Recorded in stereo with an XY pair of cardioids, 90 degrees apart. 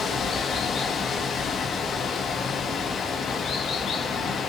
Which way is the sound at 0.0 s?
60° left.